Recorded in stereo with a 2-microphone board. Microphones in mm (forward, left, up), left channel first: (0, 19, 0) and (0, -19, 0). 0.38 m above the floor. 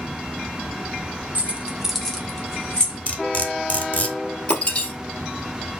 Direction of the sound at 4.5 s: 30° left (ahead or behind).